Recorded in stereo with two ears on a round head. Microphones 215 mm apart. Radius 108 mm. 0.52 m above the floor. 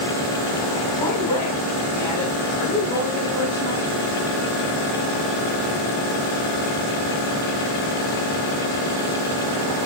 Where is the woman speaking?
20° left (ahead or behind), 5 m; by 3.9 s 25° left (ahead or behind), 6.5 m.